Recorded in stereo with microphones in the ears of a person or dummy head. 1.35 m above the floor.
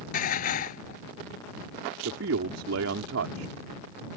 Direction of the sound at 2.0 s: 65° right (ahead or behind).